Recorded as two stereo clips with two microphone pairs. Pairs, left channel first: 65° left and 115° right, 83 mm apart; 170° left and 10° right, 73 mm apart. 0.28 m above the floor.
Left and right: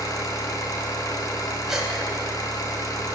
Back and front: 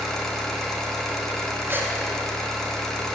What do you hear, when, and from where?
0.0 s an engine running: 90° left, 1.6 m
1.7 s a gasp: 40° right, 1.7 m